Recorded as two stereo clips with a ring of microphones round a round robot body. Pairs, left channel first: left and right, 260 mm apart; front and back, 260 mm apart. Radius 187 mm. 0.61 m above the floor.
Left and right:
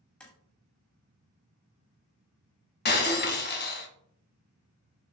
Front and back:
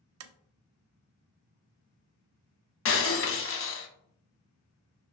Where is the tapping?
175° left, 0.5 m.